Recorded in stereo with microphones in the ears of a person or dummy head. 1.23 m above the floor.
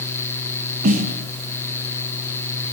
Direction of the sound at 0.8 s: 45° right (ahead or behind).